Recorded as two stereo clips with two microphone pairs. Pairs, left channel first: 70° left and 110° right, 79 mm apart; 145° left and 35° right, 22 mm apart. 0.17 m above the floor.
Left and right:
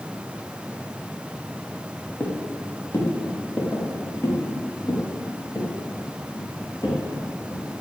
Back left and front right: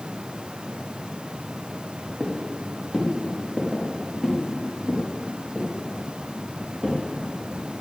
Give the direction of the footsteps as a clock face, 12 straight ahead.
12 o'clock.